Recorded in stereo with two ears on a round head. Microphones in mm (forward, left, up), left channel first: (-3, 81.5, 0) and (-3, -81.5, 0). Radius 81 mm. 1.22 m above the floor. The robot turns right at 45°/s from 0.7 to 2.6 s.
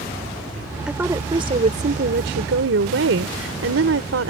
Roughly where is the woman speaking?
Behind.